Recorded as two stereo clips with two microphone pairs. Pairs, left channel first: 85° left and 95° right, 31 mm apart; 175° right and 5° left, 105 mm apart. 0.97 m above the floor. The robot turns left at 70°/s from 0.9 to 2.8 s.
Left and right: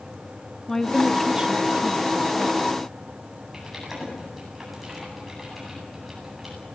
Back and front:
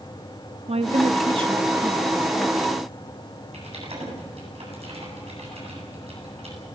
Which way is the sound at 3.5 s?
10° right.